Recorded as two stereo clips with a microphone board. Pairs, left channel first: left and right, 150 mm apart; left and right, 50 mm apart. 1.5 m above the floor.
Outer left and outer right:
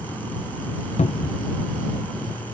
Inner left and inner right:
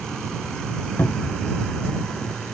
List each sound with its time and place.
1.0 s a cupboard door: 45° left (ahead or behind)